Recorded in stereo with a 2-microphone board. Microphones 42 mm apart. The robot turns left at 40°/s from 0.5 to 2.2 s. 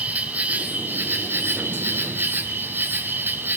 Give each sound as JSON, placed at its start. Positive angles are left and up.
{"t": 0.0, "sound": "an insect", "azimuth_deg": -45, "distance_m": 1.6}